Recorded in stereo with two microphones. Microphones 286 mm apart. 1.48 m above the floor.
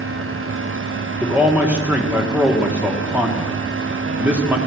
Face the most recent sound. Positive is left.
turn(degrees=-5)  # may be behind; listen again after turning